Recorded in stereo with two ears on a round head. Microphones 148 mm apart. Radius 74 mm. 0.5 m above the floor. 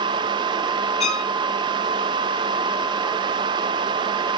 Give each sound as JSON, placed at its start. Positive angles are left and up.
{"t": 1.0, "sound": "a violin", "side_deg": 40, "distance_m": 1.9}